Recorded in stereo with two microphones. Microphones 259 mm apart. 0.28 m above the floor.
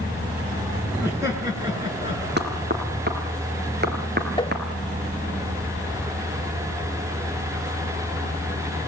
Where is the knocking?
40° right (ahead or behind), 3.5 m.